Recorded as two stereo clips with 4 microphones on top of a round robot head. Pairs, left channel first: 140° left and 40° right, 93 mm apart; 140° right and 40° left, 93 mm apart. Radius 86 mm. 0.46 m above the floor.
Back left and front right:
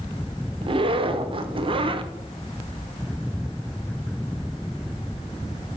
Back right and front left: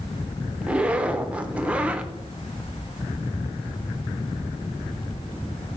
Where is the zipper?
35° right, 0.7 m.